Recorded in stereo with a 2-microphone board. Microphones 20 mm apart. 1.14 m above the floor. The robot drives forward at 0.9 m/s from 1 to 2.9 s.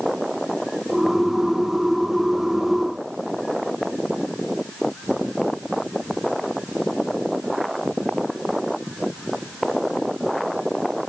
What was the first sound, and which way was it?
Only background noise.